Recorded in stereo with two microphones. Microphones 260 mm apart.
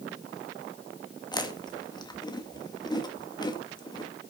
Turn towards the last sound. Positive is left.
turn(degrees=15)  # may be behind; listen again after turning